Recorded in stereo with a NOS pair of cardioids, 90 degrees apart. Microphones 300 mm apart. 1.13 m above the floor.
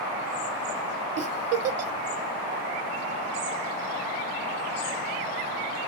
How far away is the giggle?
About 0.6 m.